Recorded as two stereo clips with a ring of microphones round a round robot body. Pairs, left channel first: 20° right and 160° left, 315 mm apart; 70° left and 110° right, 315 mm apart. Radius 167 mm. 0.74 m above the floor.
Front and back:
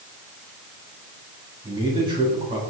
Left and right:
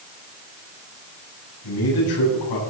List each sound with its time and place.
1.6 s a man speaking: 80° left, 7.5 m